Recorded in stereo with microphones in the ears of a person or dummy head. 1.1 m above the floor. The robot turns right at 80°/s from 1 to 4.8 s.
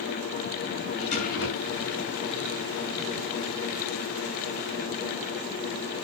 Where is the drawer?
35° left, 7 m; by 1.9 s 105° left, 7 m.